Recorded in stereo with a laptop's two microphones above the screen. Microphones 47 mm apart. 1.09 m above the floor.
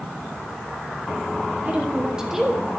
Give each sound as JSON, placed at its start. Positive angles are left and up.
{"t": 1.6, "sound": "a woman speaking", "side_deg": -30, "distance_m": 1.5}